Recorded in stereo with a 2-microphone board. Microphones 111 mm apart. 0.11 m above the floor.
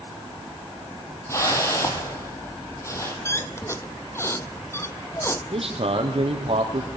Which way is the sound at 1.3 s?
25° left (ahead or behind).